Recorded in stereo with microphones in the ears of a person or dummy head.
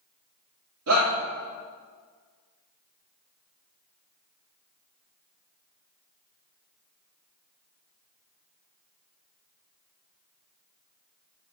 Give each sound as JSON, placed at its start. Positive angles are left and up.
{"t": 0.9, "sound": "a shout", "side_deg": -70, "distance_m": 2.0}